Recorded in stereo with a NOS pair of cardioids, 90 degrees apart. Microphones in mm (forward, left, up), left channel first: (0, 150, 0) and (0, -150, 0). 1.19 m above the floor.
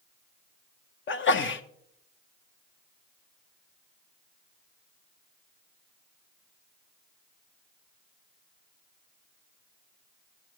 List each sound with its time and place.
1.1 s a sneeze: 40° left, 0.9 m